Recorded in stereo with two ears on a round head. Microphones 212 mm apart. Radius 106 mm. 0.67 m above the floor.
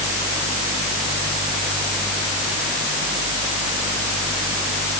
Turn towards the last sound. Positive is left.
No sound to turn to.